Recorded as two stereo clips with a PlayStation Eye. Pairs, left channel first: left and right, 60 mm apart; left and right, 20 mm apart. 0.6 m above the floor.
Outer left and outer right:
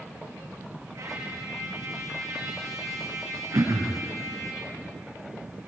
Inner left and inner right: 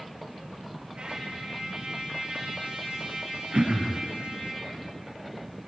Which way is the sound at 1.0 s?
65° right (ahead or behind).